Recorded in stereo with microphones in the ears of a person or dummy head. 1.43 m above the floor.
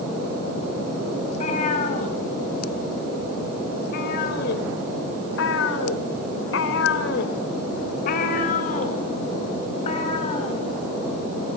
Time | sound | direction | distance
1.2 | a cat meowing | 40° left (ahead or behind) | 5 m